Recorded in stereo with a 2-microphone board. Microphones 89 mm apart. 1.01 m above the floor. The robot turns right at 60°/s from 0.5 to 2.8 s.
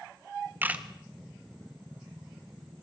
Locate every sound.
0.6 s a camera shutter: 25° right (ahead or behind), 1.5 m; by 0.8 s 10° right (ahead or behind), 1.5 m